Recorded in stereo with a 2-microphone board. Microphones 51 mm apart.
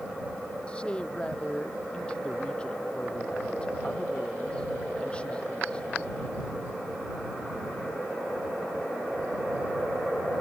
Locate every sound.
0.7 s a man speaking: 20° left (ahead or behind)